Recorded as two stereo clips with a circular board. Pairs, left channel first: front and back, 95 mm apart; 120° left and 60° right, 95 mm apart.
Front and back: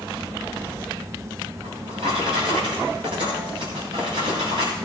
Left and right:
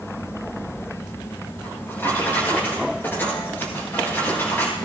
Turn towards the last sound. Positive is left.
turn(degrees=-175)